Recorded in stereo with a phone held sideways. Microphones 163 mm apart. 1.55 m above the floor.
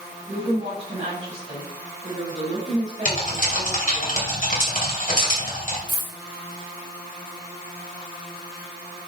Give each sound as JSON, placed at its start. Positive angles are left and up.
{"t": 0.3, "sound": "a woman speaking", "side_deg": -40, "distance_m": 4.0}
{"t": 3.0, "sound": "typing on a keyboard", "side_deg": 55, "distance_m": 2.5}
{"t": 5.9, "sound": "a dropped coin", "side_deg": 25, "distance_m": 3.5}